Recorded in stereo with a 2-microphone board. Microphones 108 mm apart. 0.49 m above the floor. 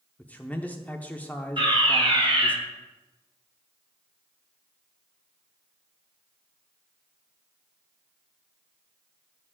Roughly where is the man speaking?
Centre.